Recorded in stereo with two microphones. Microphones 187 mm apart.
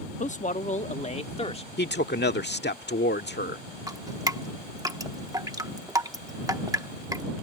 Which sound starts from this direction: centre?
Dripping, at 3.9 s.